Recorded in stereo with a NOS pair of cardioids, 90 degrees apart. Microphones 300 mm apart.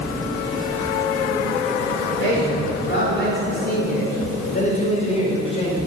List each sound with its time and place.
2.2 s a man speaking: 45° left, 5 m; by 5.8 s 20° left, 5.5 m